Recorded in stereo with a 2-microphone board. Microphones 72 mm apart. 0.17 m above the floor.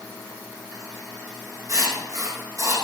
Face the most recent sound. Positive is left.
turn(degrees=-45)  # may be behind; listen again after turning